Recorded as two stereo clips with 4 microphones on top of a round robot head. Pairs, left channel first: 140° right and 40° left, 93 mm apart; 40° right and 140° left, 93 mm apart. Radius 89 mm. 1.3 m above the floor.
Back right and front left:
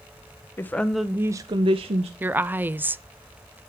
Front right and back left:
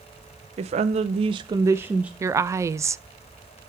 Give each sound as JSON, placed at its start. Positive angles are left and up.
{"t": 0.6, "sound": "a woman speaking", "azimuth_deg": 155, "distance_m": 0.6}
{"t": 2.2, "sound": "a woman speaking", "azimuth_deg": 100, "distance_m": 0.5}